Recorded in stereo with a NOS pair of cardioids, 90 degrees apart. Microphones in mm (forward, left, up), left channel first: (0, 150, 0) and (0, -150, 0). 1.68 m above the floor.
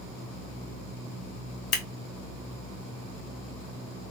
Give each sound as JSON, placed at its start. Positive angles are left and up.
{"t": 1.7, "sound": "scissors", "azimuth_deg": 55, "distance_m": 1.4}